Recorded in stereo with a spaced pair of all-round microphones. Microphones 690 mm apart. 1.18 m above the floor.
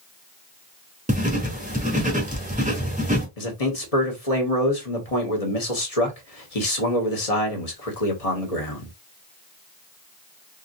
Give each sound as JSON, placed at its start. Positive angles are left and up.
{"t": 1.1, "sound": "writing", "side_deg": -10, "distance_m": 1.2}
{"t": 3.4, "sound": "a man speaking", "side_deg": 60, "distance_m": 1.2}